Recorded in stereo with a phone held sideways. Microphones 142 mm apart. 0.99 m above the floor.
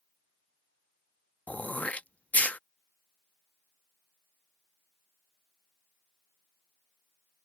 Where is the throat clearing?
10° left (ahead or behind).